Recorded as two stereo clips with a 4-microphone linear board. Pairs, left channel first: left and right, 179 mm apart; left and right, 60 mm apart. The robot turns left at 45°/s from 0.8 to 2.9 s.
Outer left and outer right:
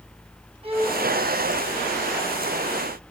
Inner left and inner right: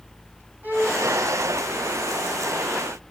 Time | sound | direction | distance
0.6 | a violin | 30° right (ahead or behind) | 2.5 m